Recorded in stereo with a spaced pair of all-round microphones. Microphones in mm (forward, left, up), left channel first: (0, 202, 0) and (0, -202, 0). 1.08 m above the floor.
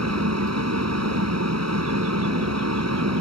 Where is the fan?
40° right (ahead or behind).